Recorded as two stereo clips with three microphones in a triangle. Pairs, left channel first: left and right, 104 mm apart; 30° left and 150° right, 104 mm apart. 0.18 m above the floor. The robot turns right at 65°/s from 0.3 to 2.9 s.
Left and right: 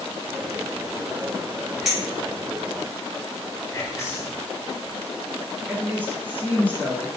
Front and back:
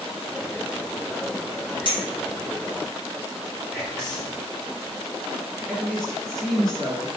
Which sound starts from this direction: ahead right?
A woman speaking, at 5.7 s.